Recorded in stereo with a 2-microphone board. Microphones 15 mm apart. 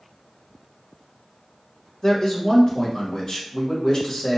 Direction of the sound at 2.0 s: 45° left (ahead or behind).